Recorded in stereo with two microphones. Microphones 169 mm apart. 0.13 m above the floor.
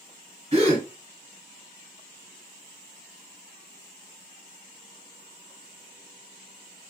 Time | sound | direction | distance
0.5 | a gasp | 35° right (ahead or behind) | 1.5 m